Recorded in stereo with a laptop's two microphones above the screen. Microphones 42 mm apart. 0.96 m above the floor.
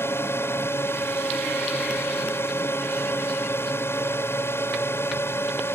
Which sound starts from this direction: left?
A drone, at 0.0 s.